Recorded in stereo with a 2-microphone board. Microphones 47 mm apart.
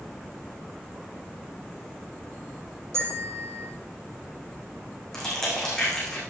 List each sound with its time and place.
2.9 s a bell: 75° right (ahead or behind), 7 m
5.1 s crushing: 10° left (ahead or behind), 7.5 m